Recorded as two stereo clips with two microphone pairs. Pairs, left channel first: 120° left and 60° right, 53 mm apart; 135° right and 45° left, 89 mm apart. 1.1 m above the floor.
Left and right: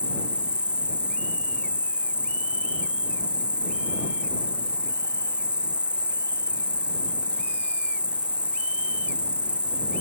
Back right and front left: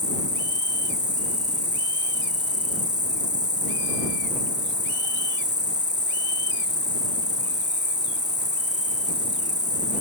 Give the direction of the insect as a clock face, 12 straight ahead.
12 o'clock.